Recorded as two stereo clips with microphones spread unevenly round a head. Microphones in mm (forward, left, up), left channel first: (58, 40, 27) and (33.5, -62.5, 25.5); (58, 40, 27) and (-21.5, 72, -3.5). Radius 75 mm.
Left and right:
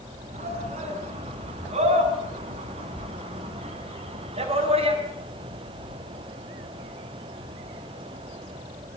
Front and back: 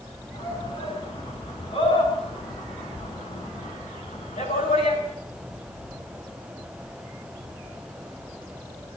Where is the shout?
85° right, 9.5 m; by 5.0 s 75° right, 7 m.